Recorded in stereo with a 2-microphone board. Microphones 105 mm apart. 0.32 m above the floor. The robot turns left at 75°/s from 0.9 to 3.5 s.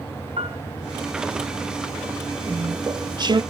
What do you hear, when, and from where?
0.4 s a piano: 70° right (ahead or behind), 1.7 m
2.5 s chewing: 20° right, 0.6 m; by 3.4 s 90° right, 0.6 m